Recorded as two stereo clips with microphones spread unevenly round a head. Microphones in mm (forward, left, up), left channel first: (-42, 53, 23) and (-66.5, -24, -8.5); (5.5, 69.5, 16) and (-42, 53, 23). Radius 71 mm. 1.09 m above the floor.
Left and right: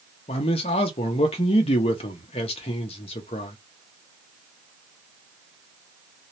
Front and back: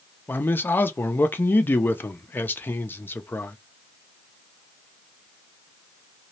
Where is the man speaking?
55° left, 0.6 m.